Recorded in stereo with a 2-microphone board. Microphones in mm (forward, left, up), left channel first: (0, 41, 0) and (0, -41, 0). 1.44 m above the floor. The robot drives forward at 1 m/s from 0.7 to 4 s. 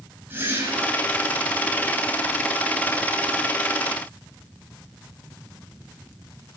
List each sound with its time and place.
0.3 s a whoosh: 25° right (ahead or behind), 6 m